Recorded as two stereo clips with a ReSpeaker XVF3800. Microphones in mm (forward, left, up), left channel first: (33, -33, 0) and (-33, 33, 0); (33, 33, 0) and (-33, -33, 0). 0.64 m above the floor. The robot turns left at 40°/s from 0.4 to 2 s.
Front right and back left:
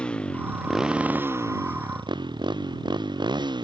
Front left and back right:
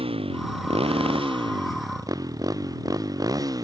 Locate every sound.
0.0 s a motorcycle: 125° right; by 3.6 s 175° left